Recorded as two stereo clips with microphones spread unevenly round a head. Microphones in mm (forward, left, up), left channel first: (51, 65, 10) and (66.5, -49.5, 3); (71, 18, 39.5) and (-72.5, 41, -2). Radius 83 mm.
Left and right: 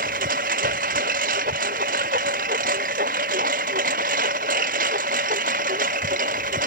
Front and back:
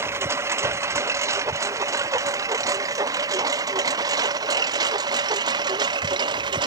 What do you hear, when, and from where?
0.0 s a lawn mower: 115° right; by 6.7 s 125° right